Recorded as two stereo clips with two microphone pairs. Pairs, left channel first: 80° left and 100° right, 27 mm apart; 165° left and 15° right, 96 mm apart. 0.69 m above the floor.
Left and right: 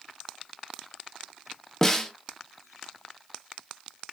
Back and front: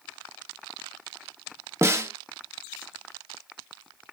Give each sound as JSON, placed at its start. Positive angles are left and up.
{"t": 1.8, "sound": "a snare drum", "azimuth_deg": 15, "distance_m": 0.6}